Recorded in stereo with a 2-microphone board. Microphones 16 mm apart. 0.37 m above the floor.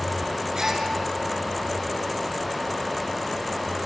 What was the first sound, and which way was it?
A gasp, 40° right (ahead or behind).